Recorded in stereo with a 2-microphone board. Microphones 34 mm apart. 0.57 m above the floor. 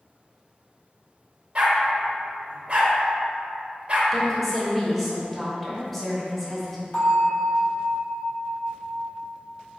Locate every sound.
1.6 s a dog barking: 35° right (ahead or behind), 0.6 m
4.1 s a woman speaking: centre (ahead or behind), 0.9 m
6.9 s a bell: 45° left (ahead or behind), 1.5 m